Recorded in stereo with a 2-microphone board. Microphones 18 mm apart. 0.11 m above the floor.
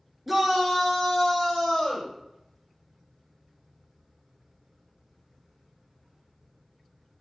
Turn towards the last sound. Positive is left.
turn(degrees=40)  # may be behind; listen again after turning